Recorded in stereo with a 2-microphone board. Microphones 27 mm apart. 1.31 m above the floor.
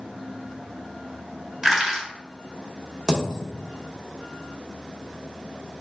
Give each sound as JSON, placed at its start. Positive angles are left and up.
{"t": 1.6, "sound": "crushing", "side_deg": -10, "distance_m": 1.4}
{"t": 3.1, "sound": "a dropped coin", "side_deg": -15, "distance_m": 1.0}